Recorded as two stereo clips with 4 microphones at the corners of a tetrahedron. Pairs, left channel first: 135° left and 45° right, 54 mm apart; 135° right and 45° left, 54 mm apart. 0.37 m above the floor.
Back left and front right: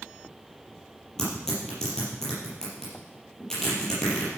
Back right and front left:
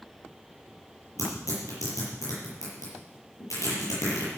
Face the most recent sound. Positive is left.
turn(degrees=-145)